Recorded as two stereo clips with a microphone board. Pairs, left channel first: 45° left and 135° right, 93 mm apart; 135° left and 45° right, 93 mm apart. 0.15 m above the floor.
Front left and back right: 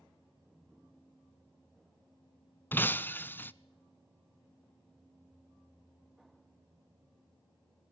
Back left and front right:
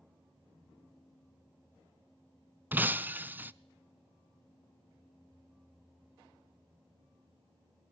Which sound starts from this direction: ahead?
Breaking glass, at 2.7 s.